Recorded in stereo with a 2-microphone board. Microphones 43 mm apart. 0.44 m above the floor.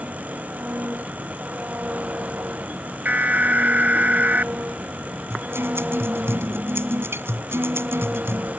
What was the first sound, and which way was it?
An engine running, 35° right (ahead or behind).